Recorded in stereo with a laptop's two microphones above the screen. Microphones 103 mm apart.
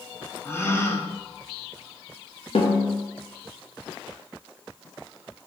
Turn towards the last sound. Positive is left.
turn(degrees=70)  # may be behind; listen again after turning